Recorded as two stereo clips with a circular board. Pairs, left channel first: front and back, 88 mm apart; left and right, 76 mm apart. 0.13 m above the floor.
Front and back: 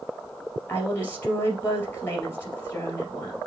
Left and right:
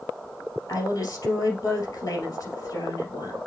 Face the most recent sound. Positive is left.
turn(degrees=60)